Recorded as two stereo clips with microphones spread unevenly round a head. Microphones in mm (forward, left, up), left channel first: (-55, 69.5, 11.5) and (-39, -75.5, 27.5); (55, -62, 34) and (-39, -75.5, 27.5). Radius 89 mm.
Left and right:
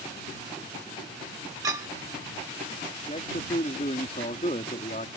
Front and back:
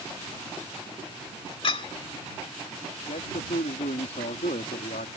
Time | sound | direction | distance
1.6 | a clink | 15° right | ?
3.1 | a man speaking | 35° left | ?